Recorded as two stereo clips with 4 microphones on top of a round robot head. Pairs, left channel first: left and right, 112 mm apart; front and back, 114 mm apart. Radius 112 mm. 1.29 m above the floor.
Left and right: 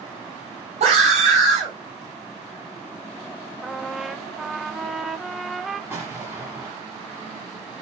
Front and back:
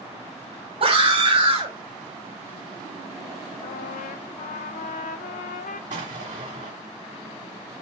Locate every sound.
0.8 s a scream: 125° right, 6 m
3.6 s a trumpet: straight ahead, 0.5 m
5.9 s an explosion: 165° right, 1.6 m